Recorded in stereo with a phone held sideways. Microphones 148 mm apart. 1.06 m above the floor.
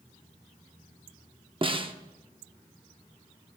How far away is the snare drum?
About 0.8 m.